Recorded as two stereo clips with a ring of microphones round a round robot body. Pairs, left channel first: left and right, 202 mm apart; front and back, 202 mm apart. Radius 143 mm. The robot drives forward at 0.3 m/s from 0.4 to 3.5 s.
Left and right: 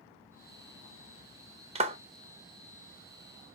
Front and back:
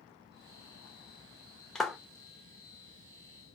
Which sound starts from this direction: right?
A clap, at 1.8 s.